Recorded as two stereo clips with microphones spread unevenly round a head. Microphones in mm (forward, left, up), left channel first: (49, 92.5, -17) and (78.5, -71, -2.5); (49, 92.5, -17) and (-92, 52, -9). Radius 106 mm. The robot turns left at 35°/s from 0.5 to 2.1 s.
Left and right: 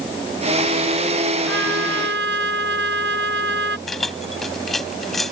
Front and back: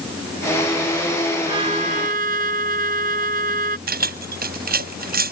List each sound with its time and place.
1.5 s a trumpet: 95° right; by 3.8 s 115° right
3.9 s keys jangling: 170° right